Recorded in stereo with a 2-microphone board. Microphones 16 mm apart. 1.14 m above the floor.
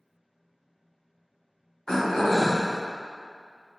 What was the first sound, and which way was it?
Throat clearing, 60° left (ahead or behind).